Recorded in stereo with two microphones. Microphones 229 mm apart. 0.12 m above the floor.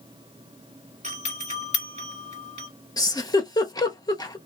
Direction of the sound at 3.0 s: 15° left (ahead or behind).